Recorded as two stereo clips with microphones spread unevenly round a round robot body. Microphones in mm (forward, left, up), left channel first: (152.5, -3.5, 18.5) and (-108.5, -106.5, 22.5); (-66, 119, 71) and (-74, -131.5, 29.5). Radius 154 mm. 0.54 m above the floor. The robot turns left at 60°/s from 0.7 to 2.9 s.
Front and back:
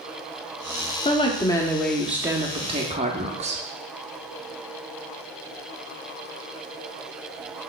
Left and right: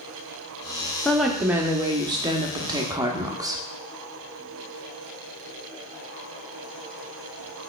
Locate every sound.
1.1 s a woman speaking: 10° right, 0.8 m; by 3.6 s 125° right, 0.8 m